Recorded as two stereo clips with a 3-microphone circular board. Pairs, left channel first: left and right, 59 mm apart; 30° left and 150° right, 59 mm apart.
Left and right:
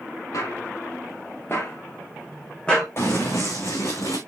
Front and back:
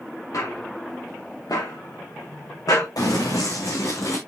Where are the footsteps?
60° left, 5 m; by 2.9 s 10° left, 3 m.